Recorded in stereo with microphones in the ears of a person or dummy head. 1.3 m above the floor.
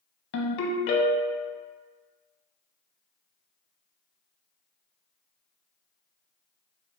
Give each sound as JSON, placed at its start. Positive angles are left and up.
{"t": 0.3, "sound": "a ringtone", "side_deg": 75, "distance_m": 0.7}